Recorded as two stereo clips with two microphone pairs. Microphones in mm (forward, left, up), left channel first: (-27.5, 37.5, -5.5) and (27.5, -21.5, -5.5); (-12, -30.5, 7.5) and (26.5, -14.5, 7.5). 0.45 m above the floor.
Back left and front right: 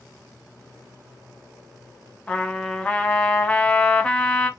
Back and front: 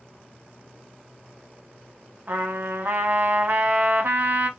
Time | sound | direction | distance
2.3 | a trumpet | 55° left | 0.6 m